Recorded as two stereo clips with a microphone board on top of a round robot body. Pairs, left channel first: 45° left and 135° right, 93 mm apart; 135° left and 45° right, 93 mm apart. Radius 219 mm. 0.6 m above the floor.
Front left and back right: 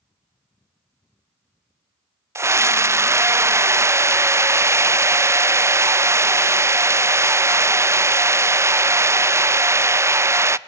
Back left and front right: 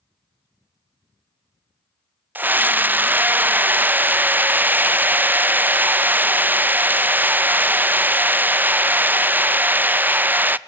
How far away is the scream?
About 0.6 m.